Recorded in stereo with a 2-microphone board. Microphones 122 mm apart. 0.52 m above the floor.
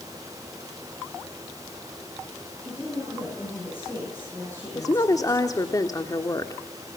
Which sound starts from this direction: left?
A woman speaking, at 4.8 s.